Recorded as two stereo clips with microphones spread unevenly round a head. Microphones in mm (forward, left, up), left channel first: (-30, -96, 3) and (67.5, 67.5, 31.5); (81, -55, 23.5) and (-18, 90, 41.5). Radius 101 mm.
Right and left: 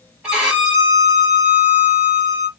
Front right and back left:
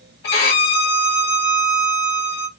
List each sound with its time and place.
0.2 s a violin: 25° right, 1.0 m